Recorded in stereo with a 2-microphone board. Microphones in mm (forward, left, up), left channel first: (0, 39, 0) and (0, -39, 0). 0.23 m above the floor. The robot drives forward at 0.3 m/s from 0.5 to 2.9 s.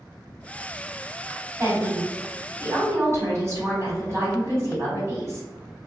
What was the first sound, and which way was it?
A woman speaking, 40° right (ahead or behind).